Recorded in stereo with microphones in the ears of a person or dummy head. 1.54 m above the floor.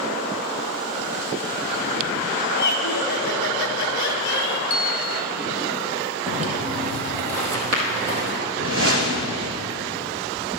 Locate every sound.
2.5 s laughter: 55° left (ahead or behind), 1.0 m
4.7 s a bell: 25° left (ahead or behind), 0.6 m
6.3 s footsteps: 35° right (ahead or behind), 2 m; by 8.4 s 40° right (ahead or behind), 3 m
8.6 s a whoosh: 65° right (ahead or behind), 0.9 m